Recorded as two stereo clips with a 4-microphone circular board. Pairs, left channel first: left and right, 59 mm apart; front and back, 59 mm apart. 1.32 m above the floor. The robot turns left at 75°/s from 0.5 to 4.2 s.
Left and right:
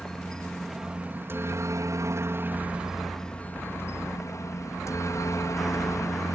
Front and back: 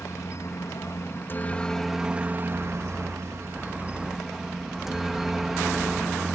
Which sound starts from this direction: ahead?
A helicopter, at 0.0 s.